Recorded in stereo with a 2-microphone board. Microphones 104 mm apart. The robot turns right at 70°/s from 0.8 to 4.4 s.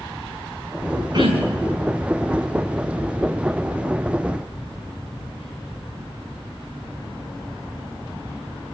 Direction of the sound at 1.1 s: 140° right.